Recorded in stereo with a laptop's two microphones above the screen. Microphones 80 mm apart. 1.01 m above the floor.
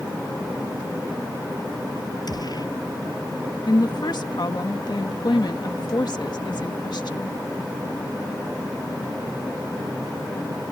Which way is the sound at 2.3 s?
55° left (ahead or behind).